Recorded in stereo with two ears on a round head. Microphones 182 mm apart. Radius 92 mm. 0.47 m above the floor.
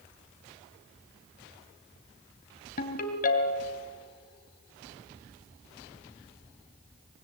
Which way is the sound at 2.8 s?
40° left (ahead or behind).